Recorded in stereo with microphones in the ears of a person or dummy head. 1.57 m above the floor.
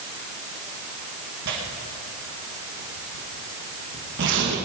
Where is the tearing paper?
60° right (ahead or behind), 2 m.